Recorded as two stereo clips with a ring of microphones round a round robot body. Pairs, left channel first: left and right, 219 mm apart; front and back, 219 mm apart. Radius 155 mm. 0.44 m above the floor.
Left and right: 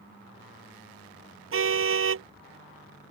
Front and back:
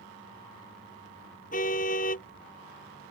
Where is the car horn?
65° right.